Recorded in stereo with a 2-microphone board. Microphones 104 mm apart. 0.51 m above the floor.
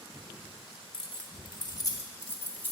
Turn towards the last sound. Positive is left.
turn(degrees=15)  # may be behind; listen again after turning